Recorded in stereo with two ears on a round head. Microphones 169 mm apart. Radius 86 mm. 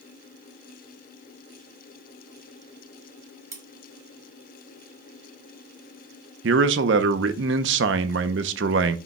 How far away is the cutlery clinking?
About 1.2 m.